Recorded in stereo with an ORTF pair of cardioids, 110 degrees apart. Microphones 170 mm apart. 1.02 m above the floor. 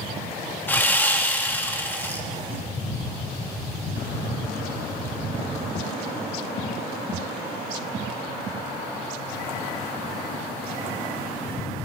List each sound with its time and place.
0.7 s sawing: 10° left, 1.2 m